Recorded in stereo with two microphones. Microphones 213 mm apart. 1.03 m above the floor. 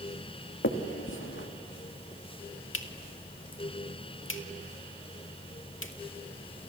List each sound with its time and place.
0.6 s a finger snap: 70° left (ahead or behind), 1.8 m